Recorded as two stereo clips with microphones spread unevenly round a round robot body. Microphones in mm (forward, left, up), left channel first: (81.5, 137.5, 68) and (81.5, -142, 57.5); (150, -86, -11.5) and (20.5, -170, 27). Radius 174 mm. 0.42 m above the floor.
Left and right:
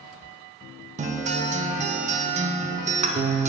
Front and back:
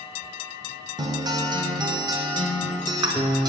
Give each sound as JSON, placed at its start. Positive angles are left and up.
{"t": 1.0, "sound": "a guitar", "azimuth_deg": -85, "distance_m": 0.6}